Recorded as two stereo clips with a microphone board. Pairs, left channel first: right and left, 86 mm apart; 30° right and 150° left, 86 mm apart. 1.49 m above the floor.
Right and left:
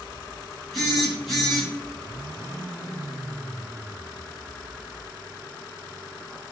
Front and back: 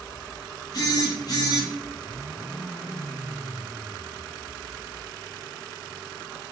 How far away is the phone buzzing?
About 1.2 m.